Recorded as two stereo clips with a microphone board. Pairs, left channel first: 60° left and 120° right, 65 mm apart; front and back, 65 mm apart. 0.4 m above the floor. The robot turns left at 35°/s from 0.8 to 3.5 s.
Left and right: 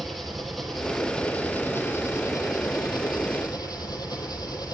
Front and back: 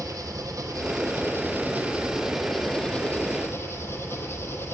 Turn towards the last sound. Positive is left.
turn(degrees=55)